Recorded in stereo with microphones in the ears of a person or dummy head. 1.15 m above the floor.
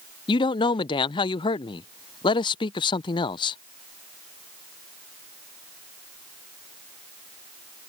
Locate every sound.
0.3 s a man speaking: 20° left (ahead or behind)